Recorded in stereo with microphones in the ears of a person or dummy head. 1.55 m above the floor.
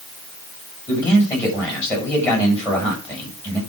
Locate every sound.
0.9 s a man speaking: 15° left (ahead or behind), 7.5 m